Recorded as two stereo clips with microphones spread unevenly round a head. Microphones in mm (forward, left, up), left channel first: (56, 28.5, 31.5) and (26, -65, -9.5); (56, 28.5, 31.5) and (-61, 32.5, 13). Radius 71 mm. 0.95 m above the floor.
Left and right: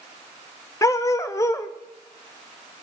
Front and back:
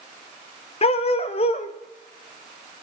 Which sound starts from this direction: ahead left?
A dog barking, at 0.8 s.